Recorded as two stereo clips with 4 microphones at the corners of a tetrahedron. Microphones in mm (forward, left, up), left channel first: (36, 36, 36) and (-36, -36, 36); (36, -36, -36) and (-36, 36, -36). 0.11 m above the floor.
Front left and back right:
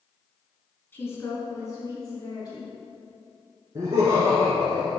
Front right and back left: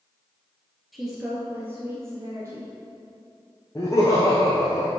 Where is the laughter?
95° right, 1.7 m.